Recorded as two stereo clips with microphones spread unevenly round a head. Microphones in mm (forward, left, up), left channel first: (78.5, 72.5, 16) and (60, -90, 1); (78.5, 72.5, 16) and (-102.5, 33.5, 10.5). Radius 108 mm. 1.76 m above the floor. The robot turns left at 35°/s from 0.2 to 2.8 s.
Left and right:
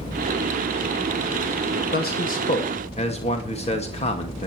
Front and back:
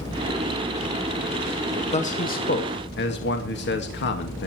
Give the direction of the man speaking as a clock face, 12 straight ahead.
10 o'clock.